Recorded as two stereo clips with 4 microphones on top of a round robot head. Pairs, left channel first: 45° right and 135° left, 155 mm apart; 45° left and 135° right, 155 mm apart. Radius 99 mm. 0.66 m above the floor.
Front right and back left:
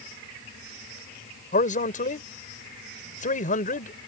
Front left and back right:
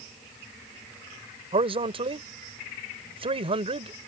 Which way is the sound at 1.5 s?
80° right.